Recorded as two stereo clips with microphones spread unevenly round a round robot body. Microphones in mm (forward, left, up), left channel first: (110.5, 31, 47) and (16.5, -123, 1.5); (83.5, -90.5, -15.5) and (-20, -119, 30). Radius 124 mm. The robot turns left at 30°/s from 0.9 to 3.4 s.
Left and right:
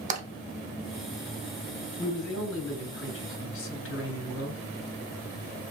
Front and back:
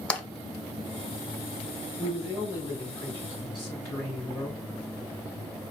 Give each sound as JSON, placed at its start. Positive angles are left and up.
{"t": 0.1, "sound": "tapping", "azimuth_deg": -70, "distance_m": 1.1}
{"t": 2.0, "sound": "a man speaking", "azimuth_deg": 115, "distance_m": 1.3}